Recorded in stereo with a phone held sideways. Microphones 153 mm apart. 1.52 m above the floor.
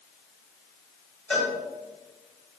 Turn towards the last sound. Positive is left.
turn(degrees=5)  # may be behind; listen again after turning